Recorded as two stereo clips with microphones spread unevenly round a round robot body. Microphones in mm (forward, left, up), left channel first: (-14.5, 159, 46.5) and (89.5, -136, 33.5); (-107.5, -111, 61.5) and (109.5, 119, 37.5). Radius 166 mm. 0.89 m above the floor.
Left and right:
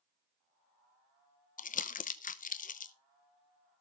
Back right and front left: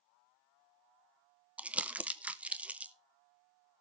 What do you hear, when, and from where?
1.6 s crumpling: 115° left, 0.8 m